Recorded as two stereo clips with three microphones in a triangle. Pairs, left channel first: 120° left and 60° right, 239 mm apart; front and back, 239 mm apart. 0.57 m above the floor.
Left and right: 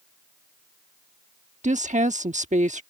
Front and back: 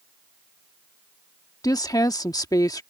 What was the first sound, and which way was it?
A woman speaking, 60° right.